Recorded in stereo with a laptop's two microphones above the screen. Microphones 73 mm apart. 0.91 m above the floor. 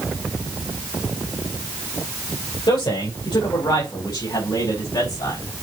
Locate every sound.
2.7 s a man speaking: 75° left (ahead or behind), 4 m; by 5.4 s 65° left (ahead or behind), 5 m